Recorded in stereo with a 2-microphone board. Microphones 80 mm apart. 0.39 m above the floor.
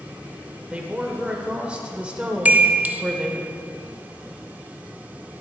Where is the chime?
20° right (ahead or behind), 0.6 m.